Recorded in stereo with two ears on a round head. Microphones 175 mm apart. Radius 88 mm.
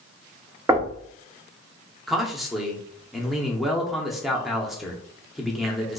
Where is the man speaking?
Centre (ahead or behind), 0.6 m.